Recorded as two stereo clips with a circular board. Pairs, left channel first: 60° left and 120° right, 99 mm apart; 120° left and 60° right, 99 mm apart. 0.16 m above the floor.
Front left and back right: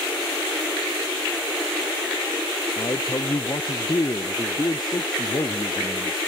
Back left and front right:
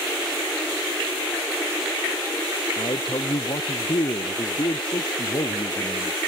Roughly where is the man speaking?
Left.